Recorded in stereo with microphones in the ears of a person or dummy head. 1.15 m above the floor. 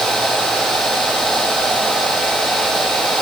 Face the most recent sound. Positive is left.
No sound to turn to.